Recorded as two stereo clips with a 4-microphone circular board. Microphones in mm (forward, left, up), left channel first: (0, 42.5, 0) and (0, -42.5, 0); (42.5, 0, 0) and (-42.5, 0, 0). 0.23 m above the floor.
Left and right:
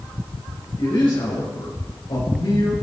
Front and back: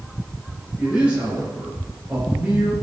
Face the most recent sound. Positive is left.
turn(degrees=105)